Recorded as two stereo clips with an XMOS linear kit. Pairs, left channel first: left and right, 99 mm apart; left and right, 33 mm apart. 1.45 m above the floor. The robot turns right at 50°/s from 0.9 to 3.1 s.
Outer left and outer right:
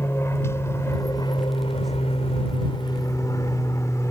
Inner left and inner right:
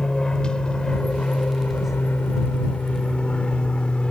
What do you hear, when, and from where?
0.0 s an aircraft: 25° left (ahead or behind); by 4.1 s 30° left (ahead or behind)